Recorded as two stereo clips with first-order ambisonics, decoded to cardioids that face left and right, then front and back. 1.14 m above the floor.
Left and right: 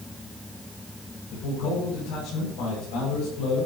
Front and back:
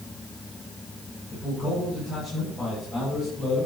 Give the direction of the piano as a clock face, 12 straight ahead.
No piano in this recording.